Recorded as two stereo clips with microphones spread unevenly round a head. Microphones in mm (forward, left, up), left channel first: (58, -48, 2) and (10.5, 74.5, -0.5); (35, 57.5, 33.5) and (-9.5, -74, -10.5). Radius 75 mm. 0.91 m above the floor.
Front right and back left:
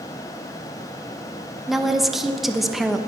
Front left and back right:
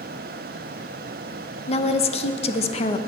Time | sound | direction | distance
1.7 | a woman speaking | 25° left | 1.0 m